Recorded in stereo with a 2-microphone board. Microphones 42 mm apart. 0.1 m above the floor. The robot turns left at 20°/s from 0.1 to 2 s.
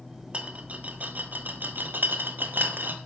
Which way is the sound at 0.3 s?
30° right (ahead or behind).